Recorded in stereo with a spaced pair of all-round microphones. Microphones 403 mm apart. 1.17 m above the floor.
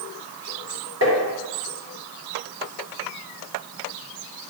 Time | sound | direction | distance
1.0 | tapping | 40° right (ahead or behind) | 3 m